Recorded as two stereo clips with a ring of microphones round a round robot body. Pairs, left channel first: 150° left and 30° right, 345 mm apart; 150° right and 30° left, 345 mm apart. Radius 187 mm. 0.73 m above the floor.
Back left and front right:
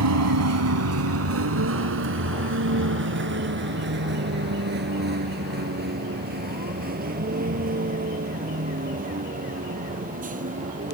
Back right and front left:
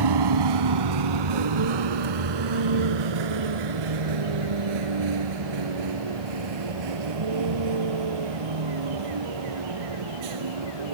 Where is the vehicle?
15° left; by 10.9 s 40° left.